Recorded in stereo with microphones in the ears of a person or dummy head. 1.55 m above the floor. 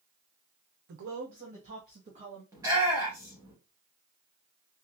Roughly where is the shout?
Centre.